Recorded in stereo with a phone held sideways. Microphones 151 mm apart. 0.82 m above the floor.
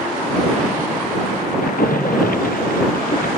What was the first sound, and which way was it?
A splash, 70° left (ahead or behind).